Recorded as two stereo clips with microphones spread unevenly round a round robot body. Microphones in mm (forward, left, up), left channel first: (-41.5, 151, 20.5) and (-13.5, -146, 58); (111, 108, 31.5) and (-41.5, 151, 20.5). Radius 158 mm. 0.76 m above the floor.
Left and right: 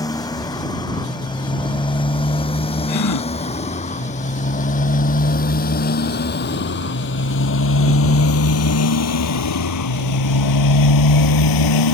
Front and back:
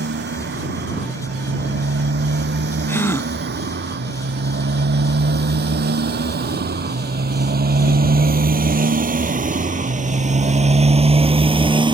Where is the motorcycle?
175° left; by 12.0 s 105° left.